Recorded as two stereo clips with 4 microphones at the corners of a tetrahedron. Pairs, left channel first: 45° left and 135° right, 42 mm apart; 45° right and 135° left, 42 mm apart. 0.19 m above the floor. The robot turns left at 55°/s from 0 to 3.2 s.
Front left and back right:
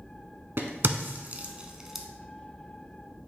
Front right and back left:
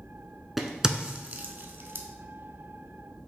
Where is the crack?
140° right, 0.5 m; by 2.1 s 140° left, 0.5 m.